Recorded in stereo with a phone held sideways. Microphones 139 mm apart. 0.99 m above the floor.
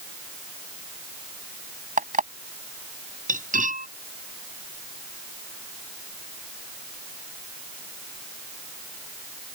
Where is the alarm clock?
70° right (ahead or behind).